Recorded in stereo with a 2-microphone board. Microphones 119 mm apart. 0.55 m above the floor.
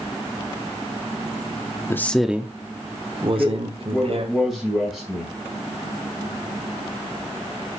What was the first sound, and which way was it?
A man speaking, 20° left (ahead or behind).